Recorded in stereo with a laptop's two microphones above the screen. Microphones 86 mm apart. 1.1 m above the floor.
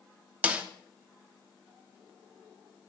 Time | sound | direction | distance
0.4 | a snare drum | 15° right (ahead or behind) | 0.7 m